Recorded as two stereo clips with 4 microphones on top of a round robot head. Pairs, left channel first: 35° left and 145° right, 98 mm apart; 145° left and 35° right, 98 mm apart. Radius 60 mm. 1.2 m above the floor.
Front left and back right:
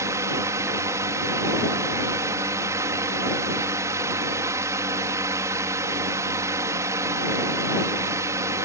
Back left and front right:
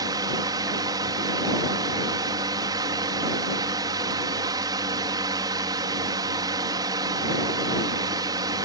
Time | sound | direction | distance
0.0 | a drone | 85° right | ?